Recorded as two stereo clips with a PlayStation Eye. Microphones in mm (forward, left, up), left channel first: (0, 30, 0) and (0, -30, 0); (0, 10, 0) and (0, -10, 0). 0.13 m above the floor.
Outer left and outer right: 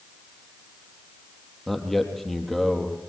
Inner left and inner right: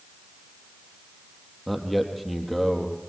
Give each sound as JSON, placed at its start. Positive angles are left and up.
{"t": 1.7, "sound": "a man speaking", "side_deg": 5, "distance_m": 3.0}